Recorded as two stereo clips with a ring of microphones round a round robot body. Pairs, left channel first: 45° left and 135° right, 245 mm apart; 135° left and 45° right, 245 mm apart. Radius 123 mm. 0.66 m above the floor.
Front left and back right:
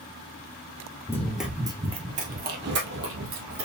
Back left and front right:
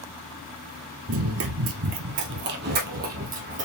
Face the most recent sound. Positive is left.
turn(degrees=-105)